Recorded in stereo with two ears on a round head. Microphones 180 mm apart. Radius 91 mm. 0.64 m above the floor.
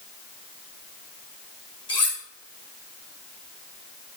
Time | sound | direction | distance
1.9 | cutlery clinking | 25° left (ahead or behind) | 4.5 m